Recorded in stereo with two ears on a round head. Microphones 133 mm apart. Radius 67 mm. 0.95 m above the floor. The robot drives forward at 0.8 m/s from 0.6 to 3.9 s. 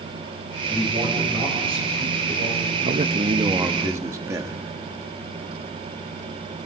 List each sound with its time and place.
0.7 s a man speaking: 35° right (ahead or behind), 5.5 m; by 2.7 s 50° right (ahead or behind), 4 m
2.8 s a man speaking: 50° right (ahead or behind), 0.6 m; by 4.6 s 20° right (ahead or behind), 1.3 m